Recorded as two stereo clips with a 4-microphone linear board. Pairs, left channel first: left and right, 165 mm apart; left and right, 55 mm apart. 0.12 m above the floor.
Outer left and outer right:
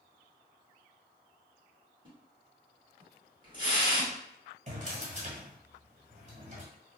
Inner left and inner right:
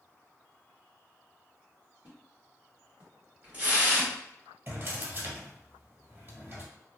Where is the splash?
25° right (ahead or behind), 1.5 m.